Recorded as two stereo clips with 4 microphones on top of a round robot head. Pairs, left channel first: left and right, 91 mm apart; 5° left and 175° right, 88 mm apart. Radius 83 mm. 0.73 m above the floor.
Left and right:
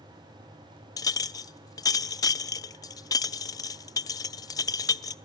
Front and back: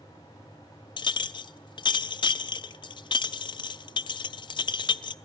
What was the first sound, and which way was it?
A clink, 40° left.